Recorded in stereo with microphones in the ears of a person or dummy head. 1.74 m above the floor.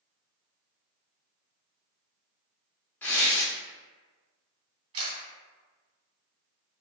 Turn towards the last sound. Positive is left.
turn(degrees=-30)  # may be behind; listen again after turning